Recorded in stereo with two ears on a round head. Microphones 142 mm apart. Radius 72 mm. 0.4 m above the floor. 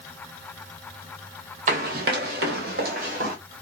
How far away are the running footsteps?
About 0.9 m.